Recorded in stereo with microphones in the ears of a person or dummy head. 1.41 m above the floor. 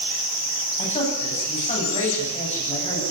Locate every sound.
0.8 s a man speaking: 35° left (ahead or behind), 9.5 m